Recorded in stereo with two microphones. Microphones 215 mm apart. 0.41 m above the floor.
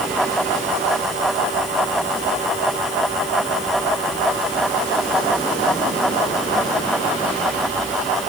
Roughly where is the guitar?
No guitar in this recording.